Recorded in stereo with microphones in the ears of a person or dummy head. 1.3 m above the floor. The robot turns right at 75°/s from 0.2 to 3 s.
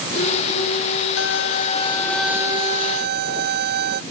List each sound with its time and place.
1.2 s a violin: 105° left; by 4.0 s 120° right